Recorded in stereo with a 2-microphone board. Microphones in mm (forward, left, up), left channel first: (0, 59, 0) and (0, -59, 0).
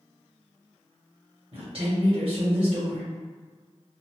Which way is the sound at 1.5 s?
55° right (ahead or behind).